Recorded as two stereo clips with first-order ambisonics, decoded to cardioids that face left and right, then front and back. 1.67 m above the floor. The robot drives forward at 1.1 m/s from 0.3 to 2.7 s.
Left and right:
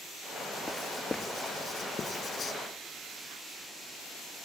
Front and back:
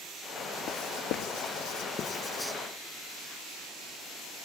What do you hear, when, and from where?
0.7 s writing: 10° left; by 2.5 s 105° left